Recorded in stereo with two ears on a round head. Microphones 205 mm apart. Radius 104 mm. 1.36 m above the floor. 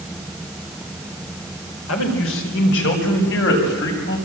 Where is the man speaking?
60° left (ahead or behind), 4.5 m; by 4.2 s 50° left (ahead or behind), 7 m.